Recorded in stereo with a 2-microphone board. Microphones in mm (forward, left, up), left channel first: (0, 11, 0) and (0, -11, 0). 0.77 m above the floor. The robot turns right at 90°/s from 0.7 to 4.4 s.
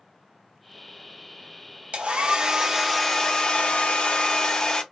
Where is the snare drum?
I don't hear a snare drum.